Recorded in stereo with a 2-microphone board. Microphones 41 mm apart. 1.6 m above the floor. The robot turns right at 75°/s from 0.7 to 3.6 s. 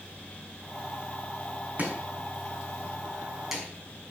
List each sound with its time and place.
1.8 s chopping: 40° right (ahead or behind), 5 m; by 3.6 s 5° right (ahead or behind), 5 m